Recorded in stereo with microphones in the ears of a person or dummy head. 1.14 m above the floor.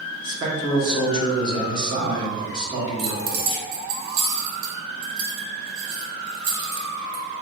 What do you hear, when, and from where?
0.2 s a man speaking: 25° right (ahead or behind), 0.8 m
3.0 s keys jangling: 70° right (ahead or behind), 0.5 m